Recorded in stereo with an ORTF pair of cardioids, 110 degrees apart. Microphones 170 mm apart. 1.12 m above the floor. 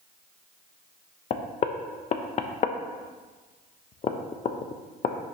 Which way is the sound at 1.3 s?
40° left.